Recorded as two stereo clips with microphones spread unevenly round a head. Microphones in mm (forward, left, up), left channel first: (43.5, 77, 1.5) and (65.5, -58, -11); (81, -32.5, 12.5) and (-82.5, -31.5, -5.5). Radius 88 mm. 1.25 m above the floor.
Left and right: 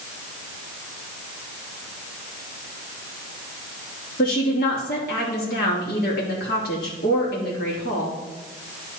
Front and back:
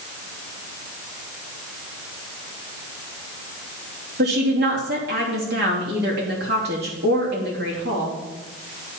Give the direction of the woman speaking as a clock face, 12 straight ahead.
7 o'clock.